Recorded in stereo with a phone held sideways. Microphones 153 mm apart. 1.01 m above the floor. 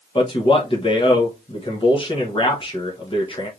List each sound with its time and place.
0.1 s a man speaking: 35° left (ahead or behind), 0.9 m